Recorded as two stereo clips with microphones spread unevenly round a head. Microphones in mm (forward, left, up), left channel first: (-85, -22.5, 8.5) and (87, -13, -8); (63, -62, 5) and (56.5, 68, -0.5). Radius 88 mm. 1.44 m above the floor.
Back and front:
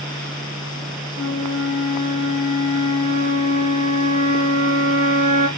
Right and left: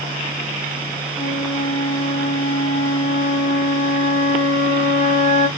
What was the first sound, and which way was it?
A flute, 145° left.